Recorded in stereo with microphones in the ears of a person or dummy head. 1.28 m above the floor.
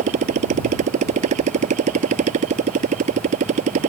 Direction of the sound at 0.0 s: 40° right (ahead or behind).